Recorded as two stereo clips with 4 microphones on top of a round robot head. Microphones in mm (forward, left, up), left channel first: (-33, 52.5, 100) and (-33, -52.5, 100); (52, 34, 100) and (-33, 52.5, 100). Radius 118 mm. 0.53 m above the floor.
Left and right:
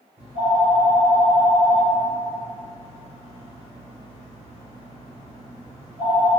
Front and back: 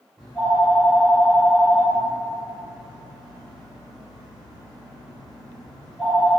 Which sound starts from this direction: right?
A phone ringing, at 0.2 s.